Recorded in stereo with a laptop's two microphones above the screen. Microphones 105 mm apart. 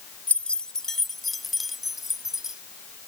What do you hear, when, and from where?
0.3 s keys jangling: 15° left (ahead or behind); by 2.6 s 5° right (ahead or behind)